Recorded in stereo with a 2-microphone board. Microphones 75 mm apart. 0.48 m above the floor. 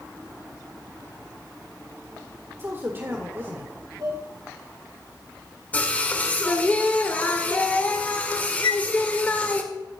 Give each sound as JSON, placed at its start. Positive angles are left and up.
{"t": 2.6, "sound": "a man speaking", "side_deg": -30, "distance_m": 1.8}
{"t": 4.0, "sound": "dishes clattering", "side_deg": -65, "distance_m": 4.0}
{"t": 5.7, "sound": "singing", "side_deg": 20, "distance_m": 1.8}
{"t": 8.6, "sound": "a flute", "side_deg": 70, "distance_m": 0.7}